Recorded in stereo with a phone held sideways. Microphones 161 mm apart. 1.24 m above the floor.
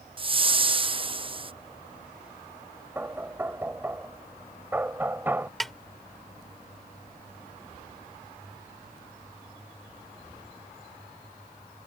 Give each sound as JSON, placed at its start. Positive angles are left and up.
{"t": 0.2, "sound": "a whoosh", "side_deg": -35}
{"t": 3.0, "sound": "knocking", "side_deg": -10}
{"t": 5.6, "sound": "a snare drum", "side_deg": 0}